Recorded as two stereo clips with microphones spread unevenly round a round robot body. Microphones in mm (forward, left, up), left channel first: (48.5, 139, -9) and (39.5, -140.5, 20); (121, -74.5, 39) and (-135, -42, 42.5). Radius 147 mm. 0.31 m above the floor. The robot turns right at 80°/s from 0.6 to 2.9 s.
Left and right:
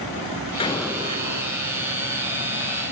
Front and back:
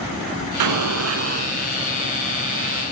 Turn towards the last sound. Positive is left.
turn(degrees=-15)